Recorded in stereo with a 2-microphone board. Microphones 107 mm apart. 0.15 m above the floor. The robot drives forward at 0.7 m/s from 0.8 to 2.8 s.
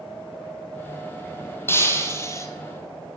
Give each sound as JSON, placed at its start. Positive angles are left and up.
{"t": 1.7, "sound": "breaking glass", "side_deg": 25, "distance_m": 2.0}